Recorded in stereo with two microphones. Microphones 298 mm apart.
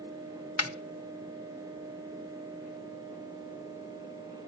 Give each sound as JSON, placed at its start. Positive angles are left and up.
{"t": 0.6, "sound": "a snare drum", "side_deg": 50, "distance_m": 1.0}